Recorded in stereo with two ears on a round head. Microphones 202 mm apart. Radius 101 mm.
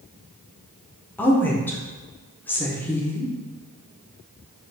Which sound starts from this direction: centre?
A woman speaking, at 1.2 s.